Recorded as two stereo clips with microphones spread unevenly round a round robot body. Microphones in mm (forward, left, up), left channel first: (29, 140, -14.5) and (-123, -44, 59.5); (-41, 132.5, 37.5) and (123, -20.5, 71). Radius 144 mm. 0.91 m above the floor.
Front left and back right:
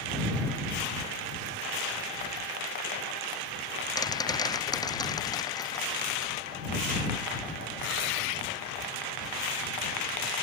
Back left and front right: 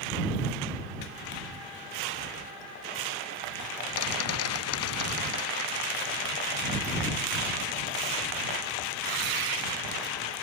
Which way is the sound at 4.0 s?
125° left.